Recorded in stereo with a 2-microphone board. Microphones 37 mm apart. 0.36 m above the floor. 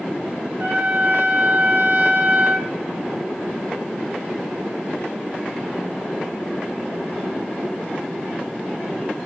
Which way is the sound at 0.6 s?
55° right (ahead or behind).